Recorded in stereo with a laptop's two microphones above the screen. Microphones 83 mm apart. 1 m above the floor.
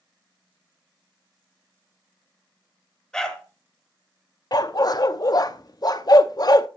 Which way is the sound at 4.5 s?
50° left (ahead or behind).